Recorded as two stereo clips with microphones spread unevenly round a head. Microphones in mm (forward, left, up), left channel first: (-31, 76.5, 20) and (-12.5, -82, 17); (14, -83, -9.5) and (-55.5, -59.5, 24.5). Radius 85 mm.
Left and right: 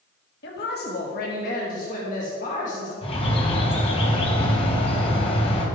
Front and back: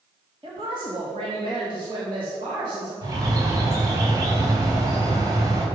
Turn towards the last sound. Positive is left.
turn(degrees=150)